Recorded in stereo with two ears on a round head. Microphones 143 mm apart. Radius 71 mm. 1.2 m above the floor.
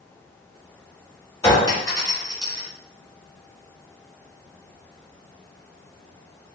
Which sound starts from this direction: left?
A clink, at 1.4 s.